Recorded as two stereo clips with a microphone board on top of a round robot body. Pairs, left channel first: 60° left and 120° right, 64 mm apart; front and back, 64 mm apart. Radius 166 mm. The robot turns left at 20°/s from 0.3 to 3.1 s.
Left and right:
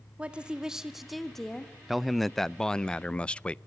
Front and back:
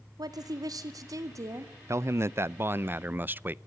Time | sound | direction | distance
0.2 | a woman speaking | 165° left | 2 m
1.9 | a man speaking | 155° left | 0.7 m